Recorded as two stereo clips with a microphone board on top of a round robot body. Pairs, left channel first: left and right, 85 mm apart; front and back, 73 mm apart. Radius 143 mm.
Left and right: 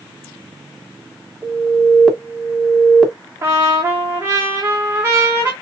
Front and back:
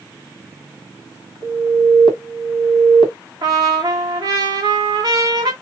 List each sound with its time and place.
1.4 s an alarm: straight ahead, 1.6 m
3.4 s a trumpet: 150° right, 0.8 m